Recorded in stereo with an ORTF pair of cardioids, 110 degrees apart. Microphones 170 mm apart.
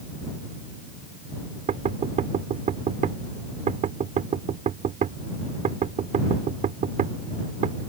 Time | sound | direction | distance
1.7 | knocking | 50° right | ?